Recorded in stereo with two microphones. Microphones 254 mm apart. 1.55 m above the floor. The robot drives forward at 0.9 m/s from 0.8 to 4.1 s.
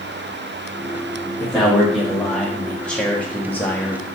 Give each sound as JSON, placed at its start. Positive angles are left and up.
{"t": 1.4, "sound": "a man speaking", "side_deg": 5, "distance_m": 3.5}